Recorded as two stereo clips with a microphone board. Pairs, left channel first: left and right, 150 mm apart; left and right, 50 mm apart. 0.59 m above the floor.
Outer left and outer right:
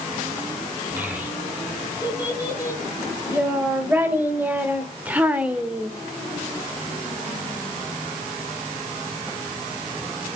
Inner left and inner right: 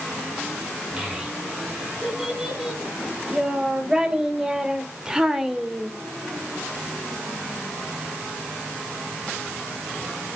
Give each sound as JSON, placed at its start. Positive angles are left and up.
{"t": 1.0, "sound": "a child speaking", "side_deg": -15, "distance_m": 4.5}